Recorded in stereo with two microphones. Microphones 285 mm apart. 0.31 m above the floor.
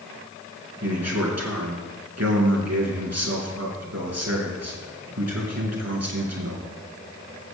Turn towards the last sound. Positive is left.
turn(degrees=-65)  # may be behind; listen again after turning